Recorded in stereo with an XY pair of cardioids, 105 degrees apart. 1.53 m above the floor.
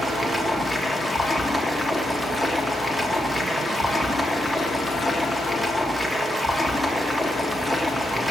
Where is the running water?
10° right, 1.5 m.